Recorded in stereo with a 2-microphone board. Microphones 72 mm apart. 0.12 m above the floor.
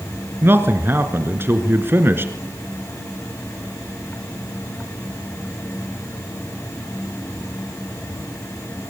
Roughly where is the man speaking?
Right.